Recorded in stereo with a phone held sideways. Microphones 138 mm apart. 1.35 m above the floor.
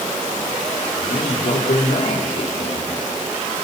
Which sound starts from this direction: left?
A man speaking, at 1.0 s.